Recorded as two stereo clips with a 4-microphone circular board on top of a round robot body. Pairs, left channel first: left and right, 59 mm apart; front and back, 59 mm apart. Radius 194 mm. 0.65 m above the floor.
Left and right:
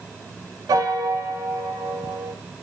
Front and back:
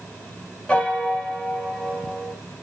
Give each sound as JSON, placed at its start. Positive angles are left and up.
{"t": 0.7, "sound": "a piano", "azimuth_deg": -75, "distance_m": 0.9}